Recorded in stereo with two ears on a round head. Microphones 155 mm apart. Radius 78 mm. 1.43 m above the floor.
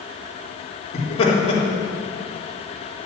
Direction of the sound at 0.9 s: 35° left (ahead or behind).